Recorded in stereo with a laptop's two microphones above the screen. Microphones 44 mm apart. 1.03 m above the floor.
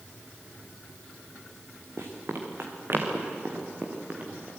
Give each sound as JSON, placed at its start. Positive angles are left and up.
{"t": 2.0, "sound": "running footsteps", "side_deg": -65, "distance_m": 3.5}